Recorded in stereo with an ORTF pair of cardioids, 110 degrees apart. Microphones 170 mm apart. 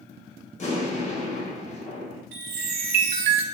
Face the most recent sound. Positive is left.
turn(degrees=-60)